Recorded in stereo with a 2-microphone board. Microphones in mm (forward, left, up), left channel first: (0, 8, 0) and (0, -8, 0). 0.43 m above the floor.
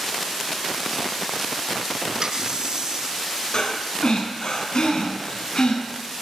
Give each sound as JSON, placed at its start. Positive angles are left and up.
{"t": 2.2, "sound": "a running tap", "side_deg": -45, "distance_m": 4.0}
{"t": 3.5, "sound": "breathing", "side_deg": 65, "distance_m": 4.5}